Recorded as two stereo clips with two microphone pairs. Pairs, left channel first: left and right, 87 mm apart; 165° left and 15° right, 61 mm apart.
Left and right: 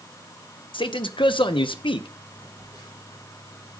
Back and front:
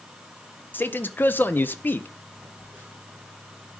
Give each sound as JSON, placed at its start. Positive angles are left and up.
{"t": 0.7, "sound": "a man speaking", "azimuth_deg": 105, "distance_m": 0.7}
{"t": 2.4, "sound": "a phone buzzing", "azimuth_deg": 60, "distance_m": 5.5}